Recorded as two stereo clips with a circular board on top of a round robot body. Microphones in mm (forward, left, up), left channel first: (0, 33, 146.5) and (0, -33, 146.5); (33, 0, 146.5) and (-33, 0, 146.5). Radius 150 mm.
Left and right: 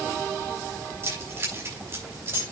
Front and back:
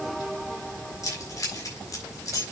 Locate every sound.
1.0 s keys jangling: 35° right, 6 m